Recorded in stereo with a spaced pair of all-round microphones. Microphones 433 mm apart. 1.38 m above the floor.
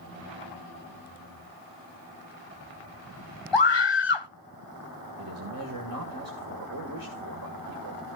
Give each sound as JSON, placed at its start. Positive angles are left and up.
{"t": 3.5, "sound": "a scream", "side_deg": 75, "distance_m": 0.9}
{"t": 5.2, "sound": "a man speaking", "side_deg": -50, "distance_m": 1.8}